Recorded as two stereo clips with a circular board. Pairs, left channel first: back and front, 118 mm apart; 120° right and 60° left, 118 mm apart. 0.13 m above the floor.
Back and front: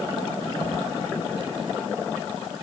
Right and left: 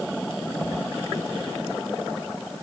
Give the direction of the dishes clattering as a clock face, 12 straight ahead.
No dishes clattering in this recording.